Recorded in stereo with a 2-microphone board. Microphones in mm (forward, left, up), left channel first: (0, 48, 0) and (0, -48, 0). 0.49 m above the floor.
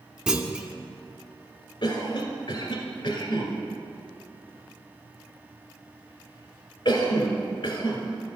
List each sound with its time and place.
0.3 s a clunk: 10° right (ahead or behind), 0.6 m
1.8 s a cough: 50° left (ahead or behind), 1.8 m